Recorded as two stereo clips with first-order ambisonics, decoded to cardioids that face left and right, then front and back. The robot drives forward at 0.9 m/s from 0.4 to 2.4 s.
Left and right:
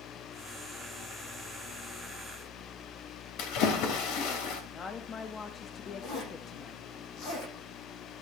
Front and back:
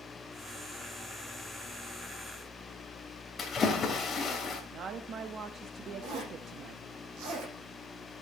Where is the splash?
70° left, 2.5 m.